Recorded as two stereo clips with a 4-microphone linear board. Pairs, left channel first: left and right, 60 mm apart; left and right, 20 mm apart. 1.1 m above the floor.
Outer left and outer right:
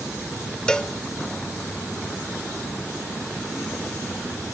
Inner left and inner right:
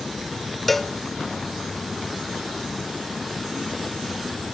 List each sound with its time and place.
0.7 s a cowbell: 10° left (ahead or behind), 0.9 m